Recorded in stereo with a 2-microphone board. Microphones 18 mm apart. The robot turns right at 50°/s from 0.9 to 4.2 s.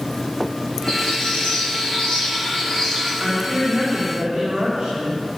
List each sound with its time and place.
0.9 s a bird: 60° left, 6.5 m; by 3.1 s 170° left, 6.5 m
3.2 s a woman speaking: 110° right, 4.5 m; by 5.3 s 60° right, 4.5 m